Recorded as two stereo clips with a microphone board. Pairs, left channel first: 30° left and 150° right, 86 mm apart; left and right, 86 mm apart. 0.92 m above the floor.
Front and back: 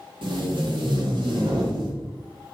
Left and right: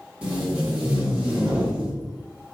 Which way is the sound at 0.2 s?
165° right.